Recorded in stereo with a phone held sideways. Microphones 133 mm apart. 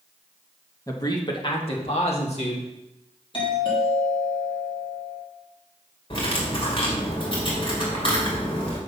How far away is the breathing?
No breathing in this recording.